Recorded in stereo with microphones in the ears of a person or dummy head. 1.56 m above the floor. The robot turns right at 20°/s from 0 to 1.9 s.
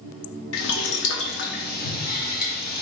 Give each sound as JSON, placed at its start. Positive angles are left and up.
{"t": 0.5, "sound": "boiling", "side_deg": 65, "distance_m": 0.7}